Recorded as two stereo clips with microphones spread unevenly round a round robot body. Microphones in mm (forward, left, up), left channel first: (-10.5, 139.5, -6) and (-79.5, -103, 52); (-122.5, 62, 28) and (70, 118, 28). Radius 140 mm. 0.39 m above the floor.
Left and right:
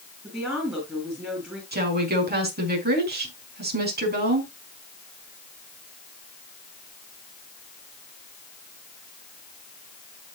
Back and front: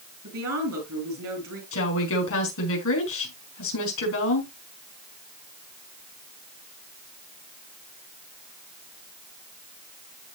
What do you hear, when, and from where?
0.2 s a woman speaking: 15° right, 7 m
1.7 s a woman speaking: 160° right, 4.5 m